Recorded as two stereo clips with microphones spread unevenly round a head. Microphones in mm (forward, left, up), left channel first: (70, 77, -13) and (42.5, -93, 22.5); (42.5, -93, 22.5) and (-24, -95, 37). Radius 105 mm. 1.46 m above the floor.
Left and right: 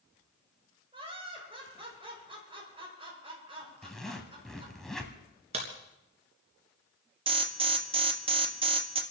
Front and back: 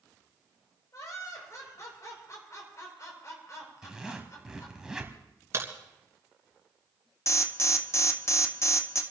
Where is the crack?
150° right, 3 m.